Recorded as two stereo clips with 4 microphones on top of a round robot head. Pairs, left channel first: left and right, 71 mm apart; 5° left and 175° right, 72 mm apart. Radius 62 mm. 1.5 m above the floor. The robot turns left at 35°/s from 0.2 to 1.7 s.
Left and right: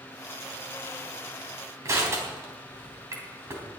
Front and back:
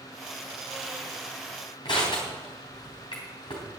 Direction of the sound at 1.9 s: 45° right.